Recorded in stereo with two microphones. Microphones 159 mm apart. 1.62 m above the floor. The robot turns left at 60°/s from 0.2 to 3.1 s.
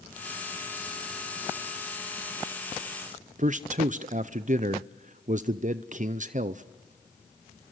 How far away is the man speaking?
About 0.5 m.